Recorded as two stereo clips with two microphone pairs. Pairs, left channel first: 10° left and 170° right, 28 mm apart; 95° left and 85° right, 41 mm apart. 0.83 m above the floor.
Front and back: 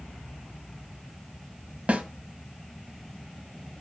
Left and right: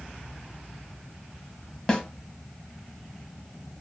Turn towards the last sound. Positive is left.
turn(degrees=165)